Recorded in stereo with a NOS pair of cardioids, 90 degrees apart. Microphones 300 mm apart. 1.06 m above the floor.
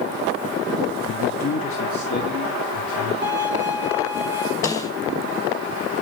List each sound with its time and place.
1.1 s a man speaking: 55° left, 0.9 m; by 3.1 s 70° left, 3 m
3.2 s a violin: 50° left, 5 m
4.6 s a snare drum: 10° left, 5 m